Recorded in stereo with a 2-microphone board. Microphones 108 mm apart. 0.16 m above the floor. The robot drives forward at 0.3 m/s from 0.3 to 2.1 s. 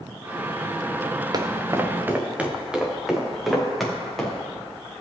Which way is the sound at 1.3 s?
40° right (ahead or behind).